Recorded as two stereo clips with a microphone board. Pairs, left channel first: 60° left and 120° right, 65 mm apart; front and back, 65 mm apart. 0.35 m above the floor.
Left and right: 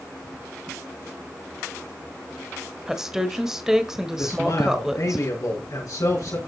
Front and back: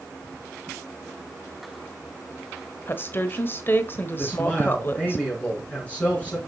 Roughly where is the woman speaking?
Ahead right.